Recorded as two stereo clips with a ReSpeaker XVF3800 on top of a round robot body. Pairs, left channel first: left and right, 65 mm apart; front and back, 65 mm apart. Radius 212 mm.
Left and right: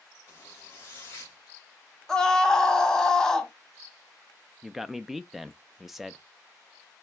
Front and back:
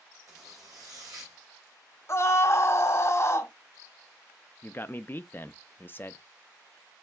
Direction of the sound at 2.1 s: 10° left.